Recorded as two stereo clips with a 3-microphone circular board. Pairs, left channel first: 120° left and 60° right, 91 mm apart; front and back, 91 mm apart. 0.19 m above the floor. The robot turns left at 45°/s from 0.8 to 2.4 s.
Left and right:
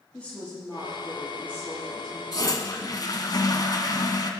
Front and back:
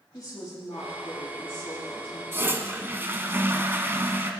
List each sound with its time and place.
0.1 s a woman speaking: 45° left, 5.5 m; by 2.2 s 20° right, 5.5 m
2.3 s a toilet flushing: 130° left, 1.0 m; by 4.3 s 125° left, 1.0 m